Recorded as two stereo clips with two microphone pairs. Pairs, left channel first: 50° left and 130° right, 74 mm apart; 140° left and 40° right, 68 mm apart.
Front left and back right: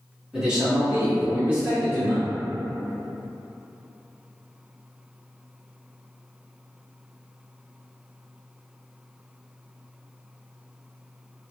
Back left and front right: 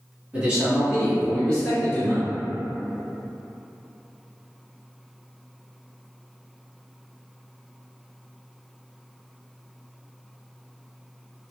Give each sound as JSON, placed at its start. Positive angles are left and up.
{"t": 0.3, "sound": "a man speaking", "azimuth_deg": -70, "distance_m": 1.3}